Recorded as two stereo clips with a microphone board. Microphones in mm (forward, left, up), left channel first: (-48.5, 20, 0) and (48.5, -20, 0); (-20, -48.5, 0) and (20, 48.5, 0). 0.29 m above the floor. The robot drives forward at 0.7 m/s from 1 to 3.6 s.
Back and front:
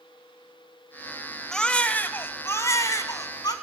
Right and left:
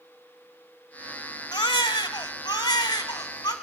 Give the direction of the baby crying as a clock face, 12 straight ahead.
4 o'clock.